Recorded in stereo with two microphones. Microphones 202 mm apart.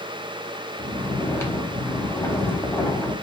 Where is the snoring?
15° left (ahead or behind), 1.1 m.